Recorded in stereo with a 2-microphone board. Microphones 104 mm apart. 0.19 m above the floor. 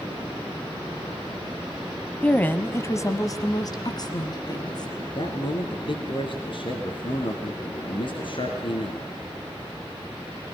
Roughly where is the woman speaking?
Centre.